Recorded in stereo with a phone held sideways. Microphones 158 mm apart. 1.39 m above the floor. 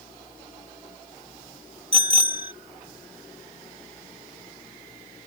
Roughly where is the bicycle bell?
Right.